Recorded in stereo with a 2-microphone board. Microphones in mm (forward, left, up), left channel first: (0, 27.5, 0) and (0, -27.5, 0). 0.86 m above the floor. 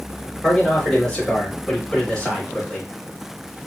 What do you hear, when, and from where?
0.4 s a man speaking: 15° left (ahead or behind), 3 m